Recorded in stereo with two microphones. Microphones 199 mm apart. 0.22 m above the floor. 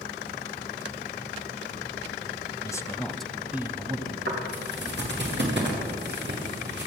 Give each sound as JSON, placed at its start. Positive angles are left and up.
{"t": 2.6, "sound": "a man speaking", "side_deg": 20, "distance_m": 1.1}
{"t": 4.3, "sound": "footsteps", "side_deg": -60, "distance_m": 6.5}